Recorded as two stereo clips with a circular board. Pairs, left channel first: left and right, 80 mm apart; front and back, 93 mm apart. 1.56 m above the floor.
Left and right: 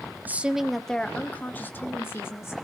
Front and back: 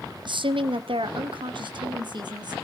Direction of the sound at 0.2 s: 155° right.